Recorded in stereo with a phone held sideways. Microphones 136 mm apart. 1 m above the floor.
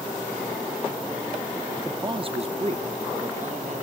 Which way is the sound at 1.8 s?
25° right (ahead or behind).